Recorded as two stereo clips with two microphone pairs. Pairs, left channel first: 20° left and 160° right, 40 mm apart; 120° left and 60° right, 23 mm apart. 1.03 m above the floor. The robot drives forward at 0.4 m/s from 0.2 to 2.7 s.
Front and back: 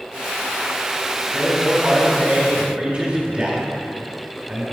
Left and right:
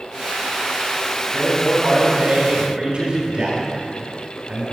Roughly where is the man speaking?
Right.